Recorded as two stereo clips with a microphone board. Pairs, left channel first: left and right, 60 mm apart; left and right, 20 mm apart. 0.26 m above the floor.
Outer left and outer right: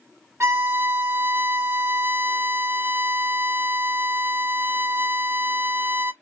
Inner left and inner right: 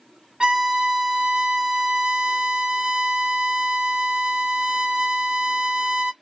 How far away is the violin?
About 0.7 m.